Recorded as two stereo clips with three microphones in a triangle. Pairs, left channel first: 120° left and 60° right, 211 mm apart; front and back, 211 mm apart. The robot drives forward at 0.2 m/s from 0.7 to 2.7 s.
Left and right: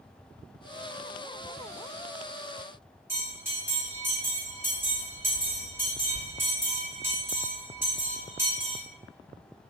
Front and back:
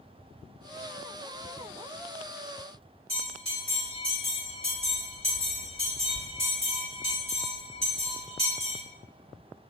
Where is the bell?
130° right, 1.3 m.